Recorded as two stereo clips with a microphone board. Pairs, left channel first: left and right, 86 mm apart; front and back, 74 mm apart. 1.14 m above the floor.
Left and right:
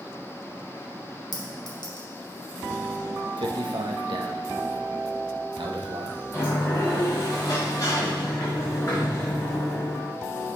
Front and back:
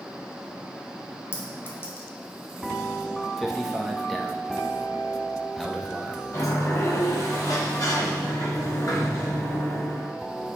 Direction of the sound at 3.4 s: 90° right.